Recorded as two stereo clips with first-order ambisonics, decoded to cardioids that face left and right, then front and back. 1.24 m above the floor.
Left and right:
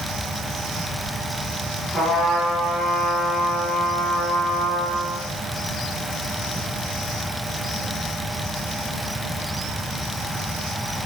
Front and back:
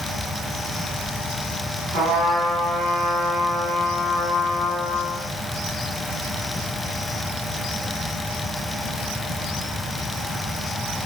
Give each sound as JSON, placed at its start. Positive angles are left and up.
{"t": 1.9, "sound": "a trumpet", "azimuth_deg": 165, "distance_m": 1.8}